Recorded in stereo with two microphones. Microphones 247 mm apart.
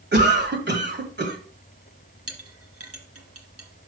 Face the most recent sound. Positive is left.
turn(degrees=-70)  # may be behind; listen again after turning